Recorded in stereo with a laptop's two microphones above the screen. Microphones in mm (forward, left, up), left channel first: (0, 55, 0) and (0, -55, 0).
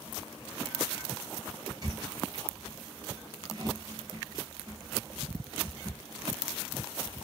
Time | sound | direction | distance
1.8 | a squeak | 35° right (ahead or behind) | 1.2 m